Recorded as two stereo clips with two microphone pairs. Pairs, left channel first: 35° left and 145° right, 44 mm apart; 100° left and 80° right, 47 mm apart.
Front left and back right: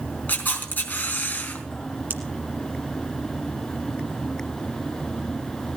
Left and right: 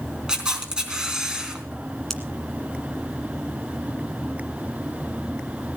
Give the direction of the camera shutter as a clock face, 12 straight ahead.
12 o'clock.